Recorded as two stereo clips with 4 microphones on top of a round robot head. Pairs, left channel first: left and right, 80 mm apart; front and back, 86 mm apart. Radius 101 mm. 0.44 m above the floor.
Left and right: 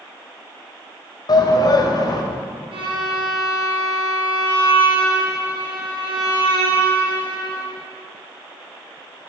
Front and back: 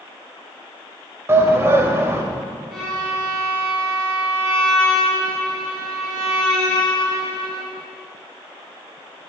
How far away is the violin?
About 4 m.